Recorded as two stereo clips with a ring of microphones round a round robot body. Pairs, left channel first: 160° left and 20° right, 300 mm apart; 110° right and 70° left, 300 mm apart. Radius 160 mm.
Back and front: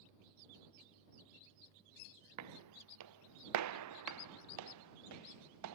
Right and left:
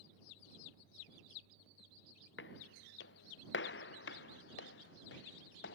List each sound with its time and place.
2.4 s footsteps: 60° right